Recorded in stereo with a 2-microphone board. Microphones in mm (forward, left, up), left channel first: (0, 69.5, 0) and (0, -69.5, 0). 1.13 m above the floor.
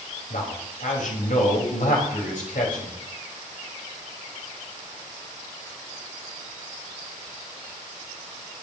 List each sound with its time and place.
0.3 s a man speaking: 70° left (ahead or behind), 4.5 m